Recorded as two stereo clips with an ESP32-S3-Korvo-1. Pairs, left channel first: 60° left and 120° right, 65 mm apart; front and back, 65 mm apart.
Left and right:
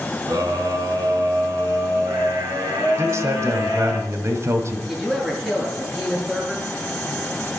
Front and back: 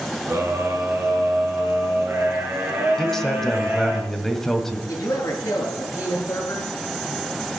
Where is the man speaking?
85° right, 1.9 m.